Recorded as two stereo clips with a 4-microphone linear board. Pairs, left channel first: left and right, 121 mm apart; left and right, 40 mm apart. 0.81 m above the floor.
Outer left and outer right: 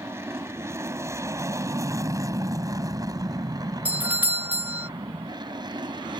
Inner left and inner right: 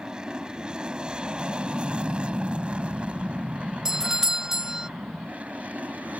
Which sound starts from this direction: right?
An aircraft, at 0.0 s.